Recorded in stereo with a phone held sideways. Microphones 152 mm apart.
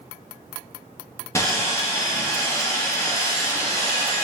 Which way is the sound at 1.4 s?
20° left (ahead or behind).